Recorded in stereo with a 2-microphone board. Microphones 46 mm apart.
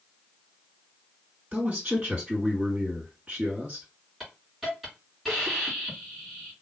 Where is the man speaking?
35° right (ahead or behind), 2.5 m.